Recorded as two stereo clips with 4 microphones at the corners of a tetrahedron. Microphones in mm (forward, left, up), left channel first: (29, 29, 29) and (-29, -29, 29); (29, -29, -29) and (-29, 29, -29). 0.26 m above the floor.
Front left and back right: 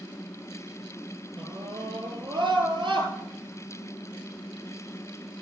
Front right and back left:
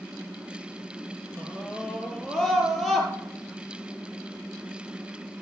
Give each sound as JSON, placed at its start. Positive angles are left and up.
{"t": 1.4, "sound": "a scream", "azimuth_deg": -125, "distance_m": 5.5}